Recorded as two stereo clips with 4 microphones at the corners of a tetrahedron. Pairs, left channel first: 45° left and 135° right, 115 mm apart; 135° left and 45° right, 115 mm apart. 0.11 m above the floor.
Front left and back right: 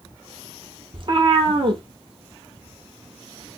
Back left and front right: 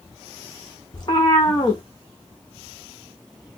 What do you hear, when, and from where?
0.9 s a cat meowing: 175° right, 1.0 m